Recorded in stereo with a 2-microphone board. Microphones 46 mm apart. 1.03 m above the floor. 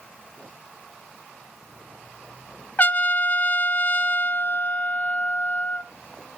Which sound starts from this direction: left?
A trumpet, at 2.8 s.